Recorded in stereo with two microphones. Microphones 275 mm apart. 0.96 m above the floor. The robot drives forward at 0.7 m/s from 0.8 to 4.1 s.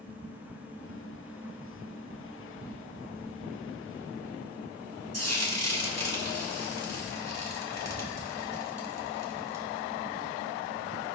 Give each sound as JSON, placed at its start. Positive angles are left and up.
{"t": 5.1, "sound": "frying", "side_deg": -60, "distance_m": 1.8}